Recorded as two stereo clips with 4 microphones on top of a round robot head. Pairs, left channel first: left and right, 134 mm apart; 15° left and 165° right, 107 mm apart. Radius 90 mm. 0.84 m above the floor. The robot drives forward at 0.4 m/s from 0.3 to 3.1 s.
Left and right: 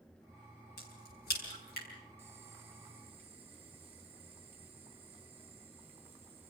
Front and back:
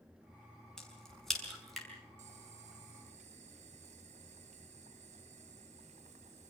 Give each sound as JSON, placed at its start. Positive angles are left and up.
{"t": 0.8, "sound": "a crack", "azimuth_deg": 100, "distance_m": 6.0}
{"t": 2.2, "sound": "boiling", "azimuth_deg": -165, "distance_m": 1.8}